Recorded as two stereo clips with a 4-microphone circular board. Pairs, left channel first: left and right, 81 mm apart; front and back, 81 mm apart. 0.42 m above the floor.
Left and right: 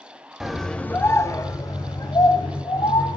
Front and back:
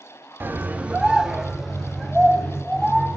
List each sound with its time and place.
0.4 s a scream: 165° right, 0.8 m; by 3.2 s 80° left, 2 m